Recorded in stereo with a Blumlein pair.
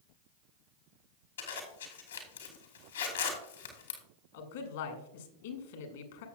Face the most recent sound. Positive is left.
turn(degrees=55)